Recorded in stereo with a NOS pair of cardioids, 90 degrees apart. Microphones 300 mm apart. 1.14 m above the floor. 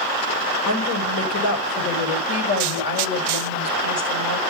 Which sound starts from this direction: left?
A woman speaking, at 0.7 s.